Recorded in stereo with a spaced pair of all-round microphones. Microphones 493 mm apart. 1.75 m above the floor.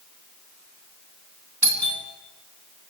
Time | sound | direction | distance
1.6 | a doorbell | 35° right (ahead or behind) | 4 m